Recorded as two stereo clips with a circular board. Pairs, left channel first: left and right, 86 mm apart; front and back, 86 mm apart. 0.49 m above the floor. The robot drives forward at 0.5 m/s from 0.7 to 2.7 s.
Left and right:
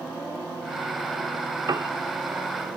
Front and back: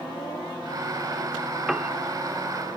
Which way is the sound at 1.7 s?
95° right.